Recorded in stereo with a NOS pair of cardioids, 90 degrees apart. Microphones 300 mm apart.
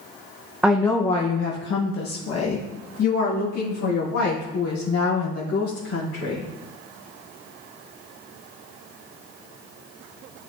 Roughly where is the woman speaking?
Ahead.